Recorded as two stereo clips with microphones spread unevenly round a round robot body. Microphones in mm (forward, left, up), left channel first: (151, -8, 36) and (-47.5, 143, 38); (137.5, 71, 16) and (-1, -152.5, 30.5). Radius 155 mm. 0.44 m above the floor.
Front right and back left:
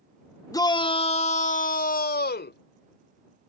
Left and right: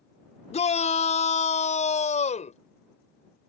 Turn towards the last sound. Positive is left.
turn(degrees=0)